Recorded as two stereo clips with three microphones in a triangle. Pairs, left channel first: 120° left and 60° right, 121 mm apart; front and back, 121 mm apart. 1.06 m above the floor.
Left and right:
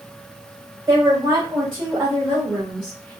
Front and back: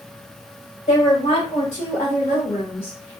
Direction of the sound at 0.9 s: Straight ahead.